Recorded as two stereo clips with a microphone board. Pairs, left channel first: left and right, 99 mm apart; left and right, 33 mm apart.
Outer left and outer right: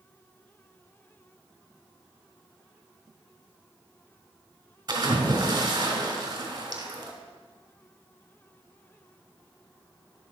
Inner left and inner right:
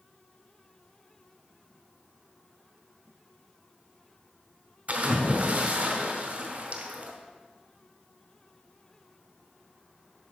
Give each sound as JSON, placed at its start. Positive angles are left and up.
{"t": 4.9, "sound": "a splash", "side_deg": -40, "distance_m": 2.5}